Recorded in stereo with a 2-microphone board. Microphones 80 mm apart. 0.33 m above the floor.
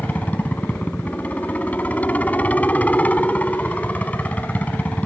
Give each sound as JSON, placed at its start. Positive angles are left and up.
{"t": 0.0, "sound": "a helicopter", "side_deg": 20}